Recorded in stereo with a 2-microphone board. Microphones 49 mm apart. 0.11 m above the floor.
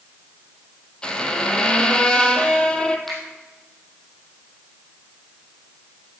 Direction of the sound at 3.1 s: 5° left (ahead or behind).